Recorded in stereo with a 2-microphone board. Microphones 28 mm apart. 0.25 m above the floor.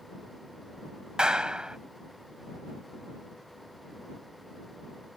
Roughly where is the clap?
Right.